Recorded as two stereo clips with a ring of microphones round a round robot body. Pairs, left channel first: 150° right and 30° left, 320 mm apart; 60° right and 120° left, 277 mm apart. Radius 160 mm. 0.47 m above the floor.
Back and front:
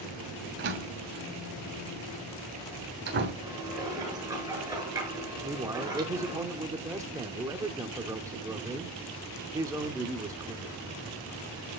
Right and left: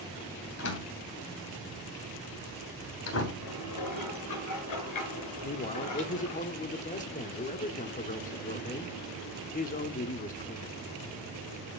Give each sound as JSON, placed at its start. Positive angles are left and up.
{"t": 0.6, "sound": "a door slam", "azimuth_deg": -25, "distance_m": 3.0}
{"t": 3.4, "sound": "dishes clattering", "azimuth_deg": -50, "distance_m": 5.0}
{"t": 5.4, "sound": "a man speaking", "azimuth_deg": -40, "distance_m": 1.0}